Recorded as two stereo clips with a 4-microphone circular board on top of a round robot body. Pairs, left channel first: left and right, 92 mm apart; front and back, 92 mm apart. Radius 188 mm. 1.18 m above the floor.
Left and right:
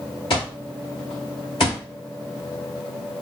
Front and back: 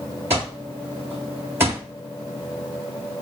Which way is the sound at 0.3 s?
115° left.